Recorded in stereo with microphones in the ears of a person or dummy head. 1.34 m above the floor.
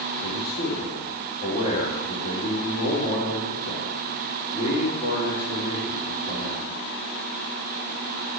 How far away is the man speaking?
About 3 m.